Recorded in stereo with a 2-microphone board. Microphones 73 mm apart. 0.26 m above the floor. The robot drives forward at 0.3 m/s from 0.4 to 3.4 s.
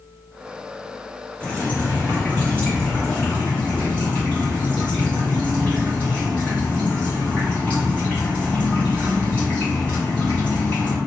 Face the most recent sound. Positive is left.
turn(degrees=15)  # may be behind; listen again after turning